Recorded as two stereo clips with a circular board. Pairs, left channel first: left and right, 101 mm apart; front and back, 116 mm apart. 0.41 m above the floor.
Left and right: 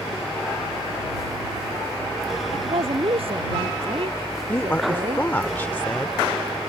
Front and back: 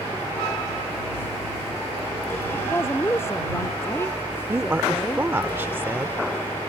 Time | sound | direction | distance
2.5 | a woman speaking | 70° right | ?
4.5 | a woman speaking | 135° left | ?